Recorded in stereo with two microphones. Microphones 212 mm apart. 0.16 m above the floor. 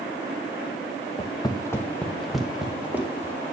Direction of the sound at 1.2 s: 30° left (ahead or behind).